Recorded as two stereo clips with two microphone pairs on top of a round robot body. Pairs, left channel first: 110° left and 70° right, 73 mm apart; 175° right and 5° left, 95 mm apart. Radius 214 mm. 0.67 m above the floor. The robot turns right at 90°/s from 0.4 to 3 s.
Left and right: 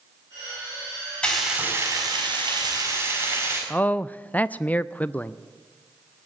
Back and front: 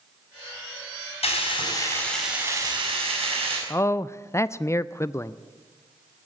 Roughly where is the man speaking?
Behind.